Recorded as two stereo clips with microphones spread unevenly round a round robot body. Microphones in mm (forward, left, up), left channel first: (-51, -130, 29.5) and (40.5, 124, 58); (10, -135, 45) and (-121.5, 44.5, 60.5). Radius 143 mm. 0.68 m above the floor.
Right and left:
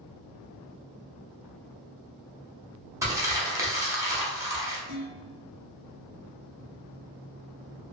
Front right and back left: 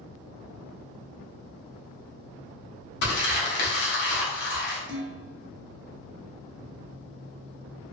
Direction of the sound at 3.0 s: 10° right.